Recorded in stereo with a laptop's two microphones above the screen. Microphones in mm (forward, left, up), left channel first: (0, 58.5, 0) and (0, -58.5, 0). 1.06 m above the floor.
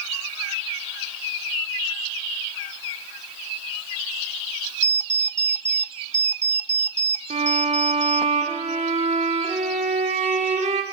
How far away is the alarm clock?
About 0.5 m.